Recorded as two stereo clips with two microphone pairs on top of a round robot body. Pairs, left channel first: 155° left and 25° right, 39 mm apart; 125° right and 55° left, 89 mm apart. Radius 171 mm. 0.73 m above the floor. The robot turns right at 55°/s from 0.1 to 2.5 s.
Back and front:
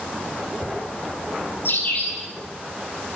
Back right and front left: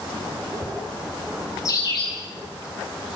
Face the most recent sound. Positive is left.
turn(degrees=-130)